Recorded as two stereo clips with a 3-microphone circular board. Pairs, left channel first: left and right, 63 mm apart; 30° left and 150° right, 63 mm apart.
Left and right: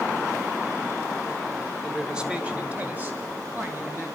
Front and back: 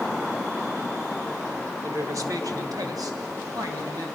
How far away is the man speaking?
About 1.6 m.